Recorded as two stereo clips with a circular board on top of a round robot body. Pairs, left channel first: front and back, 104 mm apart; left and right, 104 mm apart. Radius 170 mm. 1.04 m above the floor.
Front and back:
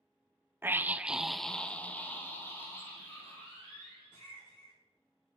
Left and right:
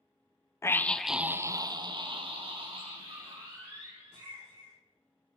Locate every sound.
0.6 s a scream: 130° left, 0.8 m; by 4.7 s 65° right, 3 m